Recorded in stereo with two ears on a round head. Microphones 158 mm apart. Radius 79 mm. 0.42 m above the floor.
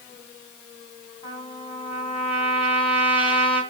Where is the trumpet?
30° left (ahead or behind), 2.5 m.